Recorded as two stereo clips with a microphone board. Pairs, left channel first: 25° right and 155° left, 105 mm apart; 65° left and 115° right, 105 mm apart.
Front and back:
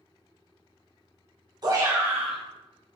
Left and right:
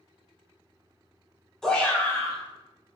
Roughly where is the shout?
Behind left.